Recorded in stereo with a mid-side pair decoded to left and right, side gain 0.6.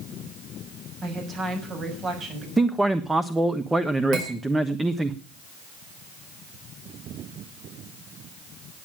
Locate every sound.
1.0 s a woman speaking: 50° right, 6.5 m
2.6 s a man speaking: 10° right, 0.9 m
4.1 s cutlery clinking: 65° right, 5.5 m